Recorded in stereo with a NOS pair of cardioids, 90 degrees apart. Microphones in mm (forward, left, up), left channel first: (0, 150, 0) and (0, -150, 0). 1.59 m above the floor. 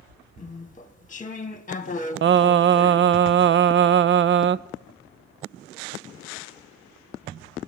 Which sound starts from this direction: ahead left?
Chewing, at 0.4 s.